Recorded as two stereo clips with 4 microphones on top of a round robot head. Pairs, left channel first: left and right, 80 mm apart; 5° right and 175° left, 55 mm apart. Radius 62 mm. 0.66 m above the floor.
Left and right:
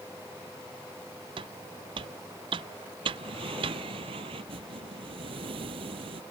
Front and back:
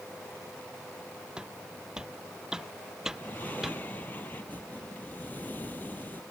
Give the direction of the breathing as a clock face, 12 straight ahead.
2 o'clock.